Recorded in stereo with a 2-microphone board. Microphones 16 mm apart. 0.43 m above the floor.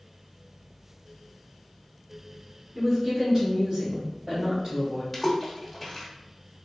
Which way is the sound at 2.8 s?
25° right (ahead or behind).